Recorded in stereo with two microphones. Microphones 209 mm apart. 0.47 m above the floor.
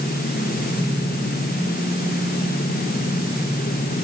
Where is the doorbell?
No doorbell in this recording.